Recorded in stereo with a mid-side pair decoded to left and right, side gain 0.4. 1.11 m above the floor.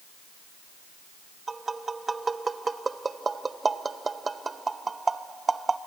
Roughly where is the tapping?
Ahead right.